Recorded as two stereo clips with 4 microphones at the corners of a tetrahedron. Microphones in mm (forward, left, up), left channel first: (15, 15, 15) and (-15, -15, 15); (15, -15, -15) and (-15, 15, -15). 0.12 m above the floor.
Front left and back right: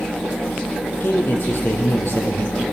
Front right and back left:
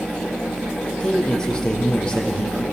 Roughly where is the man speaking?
Ahead left.